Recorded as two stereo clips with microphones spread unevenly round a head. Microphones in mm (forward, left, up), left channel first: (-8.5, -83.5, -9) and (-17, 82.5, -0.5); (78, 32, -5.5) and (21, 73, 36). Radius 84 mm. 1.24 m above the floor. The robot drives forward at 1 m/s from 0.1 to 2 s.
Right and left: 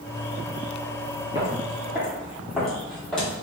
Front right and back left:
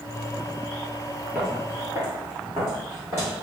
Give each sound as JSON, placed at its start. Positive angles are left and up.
{"t": 1.4, "sound": "footsteps", "azimuth_deg": 145, "distance_m": 1.5}